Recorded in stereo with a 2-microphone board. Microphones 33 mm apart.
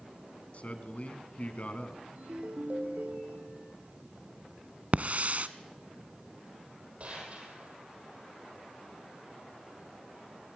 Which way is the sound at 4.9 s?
50° right (ahead or behind).